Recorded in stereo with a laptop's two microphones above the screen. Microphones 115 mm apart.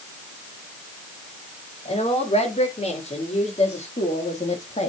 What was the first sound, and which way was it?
A woman speaking, 65° left (ahead or behind).